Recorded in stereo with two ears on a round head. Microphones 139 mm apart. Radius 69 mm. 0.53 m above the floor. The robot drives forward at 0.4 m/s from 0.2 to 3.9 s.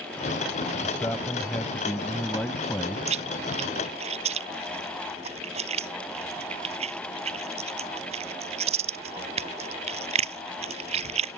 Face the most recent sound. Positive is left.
turn(degrees=-45)  # may be behind; listen again after turning